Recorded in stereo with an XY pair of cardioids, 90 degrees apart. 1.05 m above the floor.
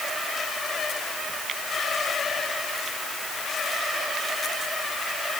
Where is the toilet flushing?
I don't hear a toilet flushing.